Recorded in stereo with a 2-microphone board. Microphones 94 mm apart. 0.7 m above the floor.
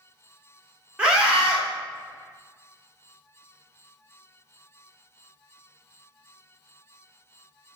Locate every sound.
1.0 s a scream: 10° right (ahead or behind), 1.1 m